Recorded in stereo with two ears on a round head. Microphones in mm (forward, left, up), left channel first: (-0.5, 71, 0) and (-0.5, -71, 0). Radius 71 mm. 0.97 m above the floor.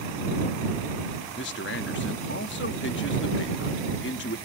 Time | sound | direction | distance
1.4 | a man speaking | 80° left | ?